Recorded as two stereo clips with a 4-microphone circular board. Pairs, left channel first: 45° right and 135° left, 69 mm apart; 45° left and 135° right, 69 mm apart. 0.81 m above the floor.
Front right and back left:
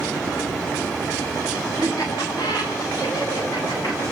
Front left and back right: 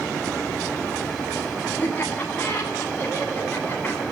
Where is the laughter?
20° right, 9 m.